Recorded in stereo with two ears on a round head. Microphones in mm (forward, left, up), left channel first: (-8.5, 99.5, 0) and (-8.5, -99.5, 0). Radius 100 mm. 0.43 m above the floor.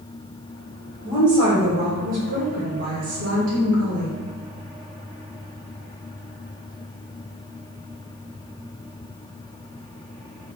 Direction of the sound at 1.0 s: 20° right (ahead or behind).